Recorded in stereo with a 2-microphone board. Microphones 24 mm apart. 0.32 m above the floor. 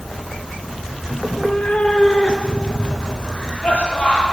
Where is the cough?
40° left (ahead or behind), 9 m.